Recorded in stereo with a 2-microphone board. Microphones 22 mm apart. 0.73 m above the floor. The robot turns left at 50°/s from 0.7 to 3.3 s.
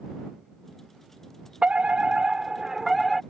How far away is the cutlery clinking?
I don't hear cutlery clinking.